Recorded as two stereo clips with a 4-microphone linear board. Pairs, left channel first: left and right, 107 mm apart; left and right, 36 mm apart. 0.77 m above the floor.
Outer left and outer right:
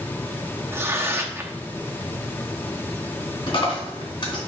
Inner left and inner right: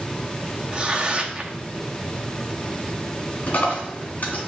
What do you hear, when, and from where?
0.7 s tearing paper: 25° right (ahead or behind), 0.9 m
3.5 s a dropped coin: 45° left (ahead or behind), 2.5 m